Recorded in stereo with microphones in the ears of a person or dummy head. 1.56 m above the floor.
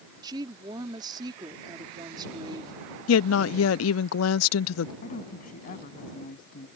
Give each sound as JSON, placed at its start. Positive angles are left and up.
{"t": 0.2, "sound": "a woman speaking", "side_deg": -25}
{"t": 3.1, "sound": "a woman speaking", "side_deg": 80}
{"t": 5.0, "sound": "a woman speaking", "side_deg": 45}